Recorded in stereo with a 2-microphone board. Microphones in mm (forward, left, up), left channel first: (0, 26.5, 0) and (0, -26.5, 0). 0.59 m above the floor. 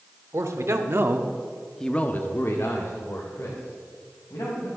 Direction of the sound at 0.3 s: 65° right (ahead or behind).